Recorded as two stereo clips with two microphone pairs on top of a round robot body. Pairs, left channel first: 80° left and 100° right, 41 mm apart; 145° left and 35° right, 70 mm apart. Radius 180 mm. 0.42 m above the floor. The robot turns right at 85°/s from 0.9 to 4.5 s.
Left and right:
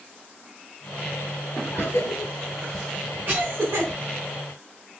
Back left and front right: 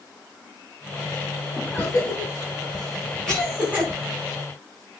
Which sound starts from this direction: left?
A cough, at 1.7 s.